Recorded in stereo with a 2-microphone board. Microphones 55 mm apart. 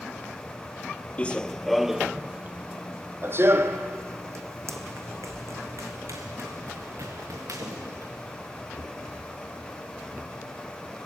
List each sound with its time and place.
1.2 s running footsteps: 25° left (ahead or behind), 0.7 m; by 8.1 s 70° right (ahead or behind), 3.5 m